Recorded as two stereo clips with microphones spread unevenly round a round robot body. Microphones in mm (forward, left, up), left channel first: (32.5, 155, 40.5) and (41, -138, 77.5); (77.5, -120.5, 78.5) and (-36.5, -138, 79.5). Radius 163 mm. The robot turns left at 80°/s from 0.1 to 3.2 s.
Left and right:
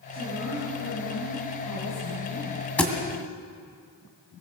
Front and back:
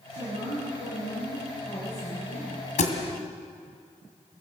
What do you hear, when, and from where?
0.1 s a woman speaking: 145° right, 8.5 m; by 2.6 s 15° left, 8.5 m
2.8 s a thud: 5° left, 2.0 m; by 2.9 s 10° right, 2.0 m